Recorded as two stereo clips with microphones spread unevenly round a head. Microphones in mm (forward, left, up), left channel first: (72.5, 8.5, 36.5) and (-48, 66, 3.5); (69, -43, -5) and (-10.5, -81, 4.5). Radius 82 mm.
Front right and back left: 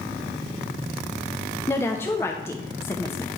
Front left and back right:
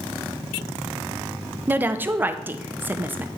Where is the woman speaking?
90° right, 0.6 m.